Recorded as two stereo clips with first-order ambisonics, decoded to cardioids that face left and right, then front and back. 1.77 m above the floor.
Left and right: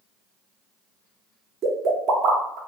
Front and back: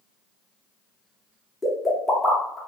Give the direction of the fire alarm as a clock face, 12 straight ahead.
No fire alarm in this recording.